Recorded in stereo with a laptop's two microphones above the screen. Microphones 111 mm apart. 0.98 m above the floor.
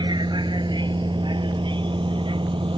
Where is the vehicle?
40° right (ahead or behind); by 2.8 s 50° right (ahead or behind).